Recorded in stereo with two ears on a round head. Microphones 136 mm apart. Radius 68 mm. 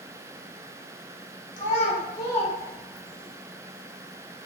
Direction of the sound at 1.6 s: 55° left (ahead or behind).